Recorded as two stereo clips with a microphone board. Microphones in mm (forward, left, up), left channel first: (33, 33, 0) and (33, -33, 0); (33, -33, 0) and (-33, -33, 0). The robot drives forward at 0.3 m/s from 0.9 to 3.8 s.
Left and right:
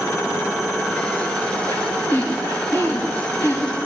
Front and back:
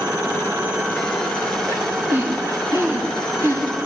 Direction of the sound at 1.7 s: 125° left.